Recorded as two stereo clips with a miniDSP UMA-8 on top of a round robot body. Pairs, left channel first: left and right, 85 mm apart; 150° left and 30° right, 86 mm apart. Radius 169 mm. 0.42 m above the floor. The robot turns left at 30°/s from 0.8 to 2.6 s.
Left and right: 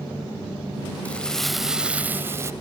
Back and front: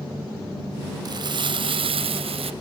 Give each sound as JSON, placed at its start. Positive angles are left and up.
{"t": 1.1, "sound": "crumpling", "azimuth_deg": 15}